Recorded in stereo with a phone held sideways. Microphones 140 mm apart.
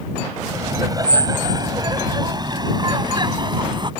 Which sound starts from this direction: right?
Laughter, at 0.5 s.